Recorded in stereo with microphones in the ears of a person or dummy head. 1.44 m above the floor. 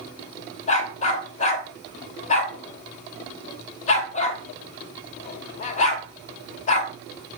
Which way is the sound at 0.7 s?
40° left (ahead or behind).